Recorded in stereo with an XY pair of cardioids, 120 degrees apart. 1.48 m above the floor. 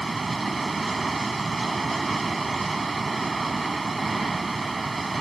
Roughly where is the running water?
Ahead.